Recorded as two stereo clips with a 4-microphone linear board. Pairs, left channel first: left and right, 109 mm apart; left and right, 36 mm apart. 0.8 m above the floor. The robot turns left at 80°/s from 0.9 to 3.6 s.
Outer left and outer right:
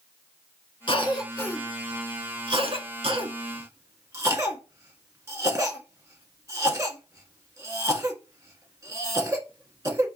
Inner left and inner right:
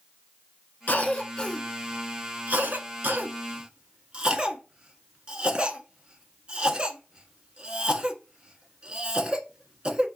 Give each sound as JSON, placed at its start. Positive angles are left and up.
{"t": 0.9, "sound": "a cough", "side_deg": 50, "distance_m": 1.5}